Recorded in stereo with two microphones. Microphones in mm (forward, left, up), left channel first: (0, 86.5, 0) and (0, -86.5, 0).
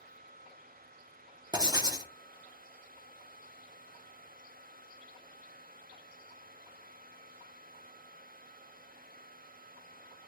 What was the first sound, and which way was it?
Writing, 25° right (ahead or behind).